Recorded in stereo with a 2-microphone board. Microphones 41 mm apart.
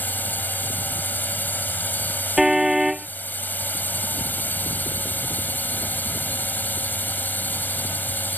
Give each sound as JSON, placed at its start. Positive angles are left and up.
{"t": 0.0, "sound": "a drone", "side_deg": 50}
{"t": 2.4, "sound": "a car horn", "side_deg": -10}